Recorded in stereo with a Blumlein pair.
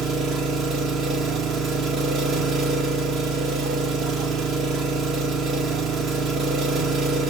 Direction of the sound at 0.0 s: 30° right.